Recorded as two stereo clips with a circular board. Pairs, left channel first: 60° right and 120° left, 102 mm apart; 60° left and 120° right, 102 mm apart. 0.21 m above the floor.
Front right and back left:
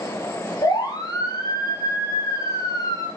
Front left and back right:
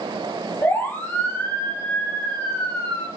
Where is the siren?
10° right, 6.5 m; by 3.1 s 5° right, 5.5 m.